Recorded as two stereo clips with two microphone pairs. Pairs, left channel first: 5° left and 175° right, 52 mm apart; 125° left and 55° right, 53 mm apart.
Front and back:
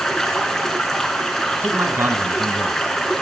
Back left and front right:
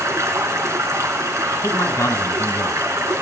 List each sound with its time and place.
0.0 s running water: 75° right, 3 m
1.6 s a man speaking: 155° left, 3.5 m